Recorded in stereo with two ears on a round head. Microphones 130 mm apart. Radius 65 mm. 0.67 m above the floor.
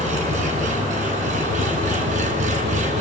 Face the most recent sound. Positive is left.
turn(degrees=-55)  # may be behind; listen again after turning